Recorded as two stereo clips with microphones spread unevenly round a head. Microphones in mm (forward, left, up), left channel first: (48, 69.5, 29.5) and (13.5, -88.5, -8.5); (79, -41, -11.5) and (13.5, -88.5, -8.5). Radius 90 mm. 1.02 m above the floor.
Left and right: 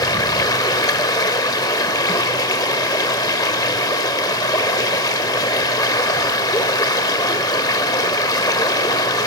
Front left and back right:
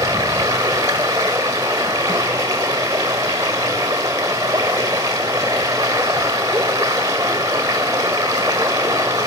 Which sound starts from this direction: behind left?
Running water, at 0.0 s.